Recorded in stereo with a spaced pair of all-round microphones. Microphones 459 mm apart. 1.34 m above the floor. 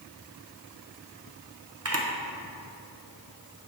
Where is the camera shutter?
30° right (ahead or behind), 0.8 m.